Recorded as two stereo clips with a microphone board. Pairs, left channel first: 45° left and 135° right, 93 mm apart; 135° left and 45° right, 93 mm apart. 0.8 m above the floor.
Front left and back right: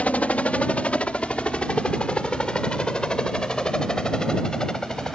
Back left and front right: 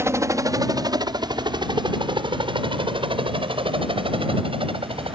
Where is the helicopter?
20° right; by 5.2 s 40° right.